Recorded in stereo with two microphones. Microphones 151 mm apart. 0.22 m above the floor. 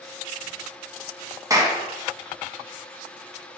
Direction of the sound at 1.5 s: 20° right (ahead or behind).